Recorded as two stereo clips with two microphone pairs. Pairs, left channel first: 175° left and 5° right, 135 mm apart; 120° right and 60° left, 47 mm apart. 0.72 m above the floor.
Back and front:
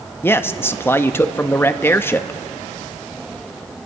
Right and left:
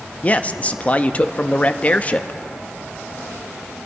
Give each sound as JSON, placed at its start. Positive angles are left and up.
{"t": 0.2, "sound": "a man speaking", "azimuth_deg": -130, "distance_m": 0.5}